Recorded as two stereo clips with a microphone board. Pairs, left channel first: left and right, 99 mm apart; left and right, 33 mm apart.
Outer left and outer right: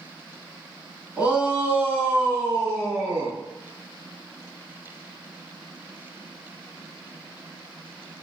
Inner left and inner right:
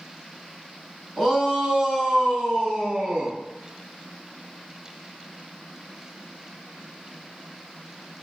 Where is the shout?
10° right (ahead or behind), 1.2 m; by 3.4 s 35° right (ahead or behind), 2.5 m.